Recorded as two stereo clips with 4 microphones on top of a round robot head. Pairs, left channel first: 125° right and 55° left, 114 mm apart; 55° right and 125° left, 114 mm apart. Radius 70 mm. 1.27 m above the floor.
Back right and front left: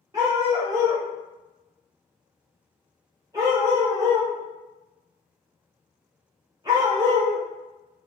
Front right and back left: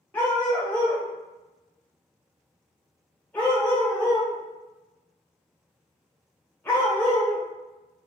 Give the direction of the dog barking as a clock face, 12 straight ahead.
12 o'clock.